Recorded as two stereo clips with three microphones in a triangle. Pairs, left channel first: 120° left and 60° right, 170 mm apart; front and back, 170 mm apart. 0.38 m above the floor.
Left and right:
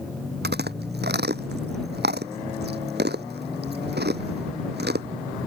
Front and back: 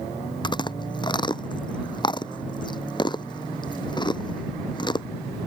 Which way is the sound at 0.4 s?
65° right.